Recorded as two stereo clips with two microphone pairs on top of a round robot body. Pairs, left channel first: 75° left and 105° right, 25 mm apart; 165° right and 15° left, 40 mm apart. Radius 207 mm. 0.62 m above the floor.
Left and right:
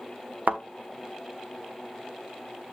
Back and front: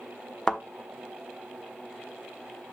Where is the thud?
95° right, 1.0 m.